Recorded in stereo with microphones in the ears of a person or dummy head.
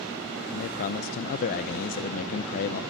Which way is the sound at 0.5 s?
50° left (ahead or behind).